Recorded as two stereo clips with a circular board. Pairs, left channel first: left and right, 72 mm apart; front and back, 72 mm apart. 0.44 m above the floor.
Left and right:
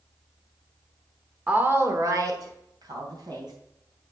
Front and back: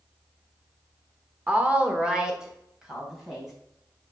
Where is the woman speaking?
135° right, 1.1 m; by 3.5 s 95° right, 3.5 m.